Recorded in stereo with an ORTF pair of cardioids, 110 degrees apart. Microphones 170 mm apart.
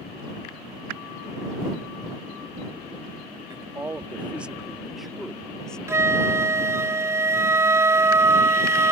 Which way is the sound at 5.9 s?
15° right.